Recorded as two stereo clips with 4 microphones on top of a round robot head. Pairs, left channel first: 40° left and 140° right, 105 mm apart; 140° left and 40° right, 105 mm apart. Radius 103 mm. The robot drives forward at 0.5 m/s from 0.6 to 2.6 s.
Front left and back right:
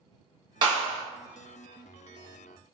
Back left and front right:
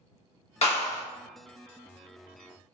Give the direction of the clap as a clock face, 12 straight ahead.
6 o'clock.